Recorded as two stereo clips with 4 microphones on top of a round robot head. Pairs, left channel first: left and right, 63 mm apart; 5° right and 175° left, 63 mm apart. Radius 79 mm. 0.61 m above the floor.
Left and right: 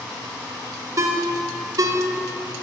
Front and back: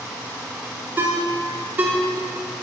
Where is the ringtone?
130° right, 0.8 m.